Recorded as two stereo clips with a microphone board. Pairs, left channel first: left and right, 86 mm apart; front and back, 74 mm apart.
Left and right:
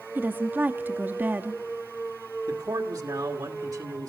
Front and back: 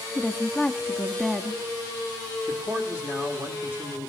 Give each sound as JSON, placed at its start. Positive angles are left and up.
{"t": 0.1, "sound": "a woman speaking", "azimuth_deg": -90, "distance_m": 0.6}
{"t": 2.5, "sound": "a man speaking", "azimuth_deg": -120, "distance_m": 1.6}